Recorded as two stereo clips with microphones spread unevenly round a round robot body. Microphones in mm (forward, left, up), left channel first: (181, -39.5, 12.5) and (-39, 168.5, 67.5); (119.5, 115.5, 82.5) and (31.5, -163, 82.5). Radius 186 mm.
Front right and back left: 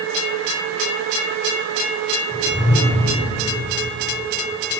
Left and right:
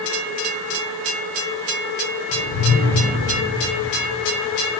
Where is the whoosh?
40° left, 3.5 m.